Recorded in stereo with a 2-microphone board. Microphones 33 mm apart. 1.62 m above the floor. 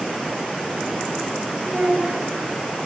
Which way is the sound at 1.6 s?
55° right (ahead or behind).